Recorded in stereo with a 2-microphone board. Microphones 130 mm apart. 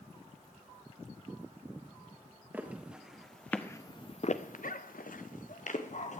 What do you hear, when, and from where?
2.5 s footsteps: 10° right (ahead or behind), 2 m; by 6.2 s 60° left (ahead or behind), 2.5 m